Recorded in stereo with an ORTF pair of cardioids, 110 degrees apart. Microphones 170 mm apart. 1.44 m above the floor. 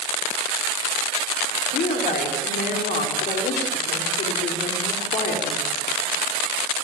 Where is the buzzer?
I don't hear a buzzer.